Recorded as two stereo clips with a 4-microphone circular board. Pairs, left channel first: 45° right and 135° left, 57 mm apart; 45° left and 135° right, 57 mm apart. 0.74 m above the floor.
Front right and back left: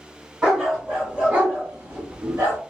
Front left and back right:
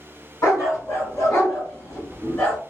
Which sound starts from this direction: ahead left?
A dog barking, at 0.4 s.